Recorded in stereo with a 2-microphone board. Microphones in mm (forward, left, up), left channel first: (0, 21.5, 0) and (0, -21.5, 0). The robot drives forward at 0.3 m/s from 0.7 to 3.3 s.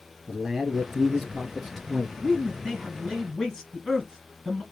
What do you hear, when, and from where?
0.3 s a man speaking: centre (ahead or behind), 1.6 m; by 2.1 s 5° left (ahead or behind), 1.3 m
2.2 s a man speaking: 10° left (ahead or behind), 1.9 m